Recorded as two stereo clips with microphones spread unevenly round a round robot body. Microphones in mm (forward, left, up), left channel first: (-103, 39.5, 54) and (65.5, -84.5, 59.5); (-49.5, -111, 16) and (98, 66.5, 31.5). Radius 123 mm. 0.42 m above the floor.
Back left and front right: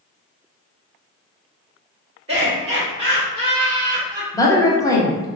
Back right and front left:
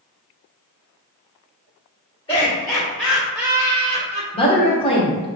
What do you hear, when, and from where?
2.3 s laughter: 80° right, 1.8 m; by 4.2 s 25° left, 1.6 m
4.3 s a woman speaking: 160° right, 1.1 m